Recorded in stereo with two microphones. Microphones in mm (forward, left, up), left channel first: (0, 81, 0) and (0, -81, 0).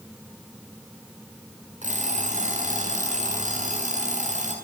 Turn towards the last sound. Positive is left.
turn(degrees=-50)  # may be behind; listen again after turning